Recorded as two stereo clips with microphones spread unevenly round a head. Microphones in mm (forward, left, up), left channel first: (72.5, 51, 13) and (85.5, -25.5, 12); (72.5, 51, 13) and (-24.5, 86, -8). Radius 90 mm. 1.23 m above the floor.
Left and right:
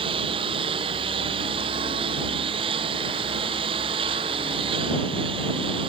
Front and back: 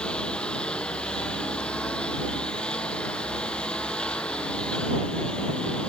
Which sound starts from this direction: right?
A lawn mower, at 0.0 s.